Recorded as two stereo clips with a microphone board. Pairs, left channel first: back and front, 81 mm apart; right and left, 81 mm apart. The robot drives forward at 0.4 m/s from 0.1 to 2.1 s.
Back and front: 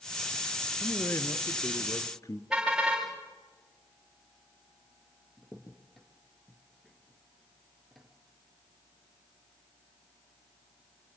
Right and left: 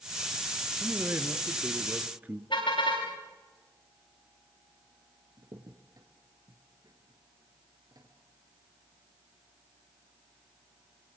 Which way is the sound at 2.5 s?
80° right.